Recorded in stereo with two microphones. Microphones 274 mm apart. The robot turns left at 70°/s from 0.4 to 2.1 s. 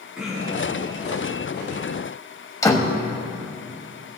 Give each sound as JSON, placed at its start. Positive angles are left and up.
{"t": 0.1, "sound": "throat clearing", "side_deg": 0, "distance_m": 4.0}
{"t": 2.6, "sound": "a door slam", "side_deg": 10, "distance_m": 1.2}